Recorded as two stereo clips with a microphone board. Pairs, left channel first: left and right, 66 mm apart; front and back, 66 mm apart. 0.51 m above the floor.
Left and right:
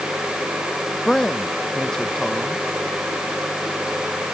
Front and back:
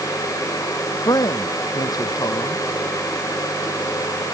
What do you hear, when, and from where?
1.1 s a man speaking: 10° left